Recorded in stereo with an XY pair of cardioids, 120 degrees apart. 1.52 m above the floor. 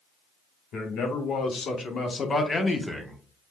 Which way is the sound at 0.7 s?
65° left.